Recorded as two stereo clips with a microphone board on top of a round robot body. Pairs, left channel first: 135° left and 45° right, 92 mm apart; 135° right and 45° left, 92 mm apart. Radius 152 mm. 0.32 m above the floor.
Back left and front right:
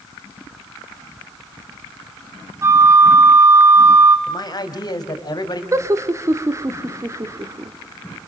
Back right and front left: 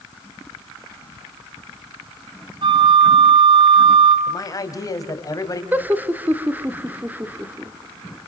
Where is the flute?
15° left, 2 m.